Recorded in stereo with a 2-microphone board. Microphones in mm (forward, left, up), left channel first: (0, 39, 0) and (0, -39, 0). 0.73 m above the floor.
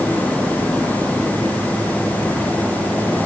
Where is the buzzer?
No buzzer in this recording.